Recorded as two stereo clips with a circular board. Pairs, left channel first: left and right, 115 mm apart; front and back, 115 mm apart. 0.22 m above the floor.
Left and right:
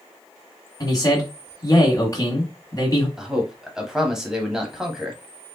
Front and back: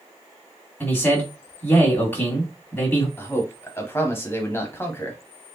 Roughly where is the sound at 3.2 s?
Ahead.